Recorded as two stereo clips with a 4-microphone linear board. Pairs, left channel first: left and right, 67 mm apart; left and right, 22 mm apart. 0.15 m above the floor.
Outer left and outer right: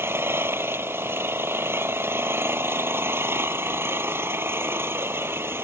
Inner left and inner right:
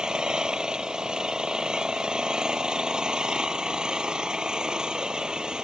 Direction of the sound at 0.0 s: 35° right (ahead or behind).